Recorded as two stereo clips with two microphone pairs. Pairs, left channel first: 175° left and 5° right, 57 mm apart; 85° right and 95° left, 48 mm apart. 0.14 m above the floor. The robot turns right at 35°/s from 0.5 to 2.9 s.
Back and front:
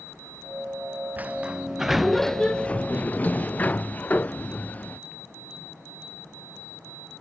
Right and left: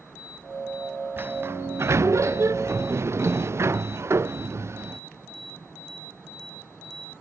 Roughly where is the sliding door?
Ahead left.